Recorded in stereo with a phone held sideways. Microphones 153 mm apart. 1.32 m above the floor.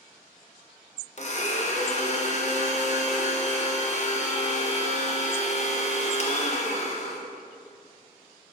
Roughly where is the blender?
Left.